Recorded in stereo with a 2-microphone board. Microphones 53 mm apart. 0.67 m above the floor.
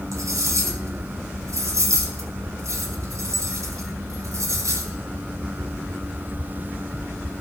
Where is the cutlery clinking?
80° right, 2.5 m.